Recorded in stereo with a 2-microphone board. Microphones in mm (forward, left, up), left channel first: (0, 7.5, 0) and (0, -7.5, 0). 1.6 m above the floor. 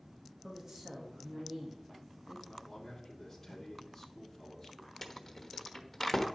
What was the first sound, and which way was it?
A woman speaking, 30° right (ahead or behind).